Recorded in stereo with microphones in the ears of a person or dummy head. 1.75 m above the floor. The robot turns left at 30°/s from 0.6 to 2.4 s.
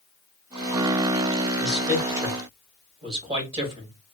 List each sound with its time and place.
1.6 s a man speaking: 5° right (ahead or behind), 1.5 m; by 4.0 s 25° right (ahead or behind), 1.5 m